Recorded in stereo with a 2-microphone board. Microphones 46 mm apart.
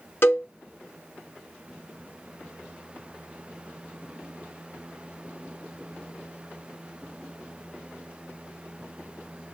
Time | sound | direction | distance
0.2 | a cowbell | 50° left (ahead or behind) | 1.1 m